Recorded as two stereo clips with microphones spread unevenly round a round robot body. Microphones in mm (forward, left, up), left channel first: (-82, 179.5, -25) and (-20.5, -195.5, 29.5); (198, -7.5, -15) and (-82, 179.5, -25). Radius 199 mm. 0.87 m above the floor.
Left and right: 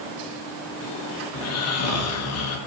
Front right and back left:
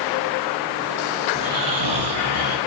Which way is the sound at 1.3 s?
140° left.